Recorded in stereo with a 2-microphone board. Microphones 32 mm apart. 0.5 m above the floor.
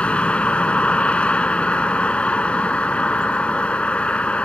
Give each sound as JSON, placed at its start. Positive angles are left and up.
{"t": 0.0, "sound": "a vehicle", "side_deg": 45}